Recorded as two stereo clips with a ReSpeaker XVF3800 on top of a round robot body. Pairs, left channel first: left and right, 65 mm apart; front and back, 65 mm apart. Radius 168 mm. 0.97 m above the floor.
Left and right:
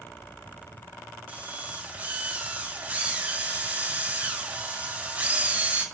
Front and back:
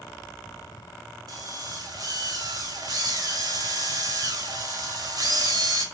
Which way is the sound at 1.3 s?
160° right.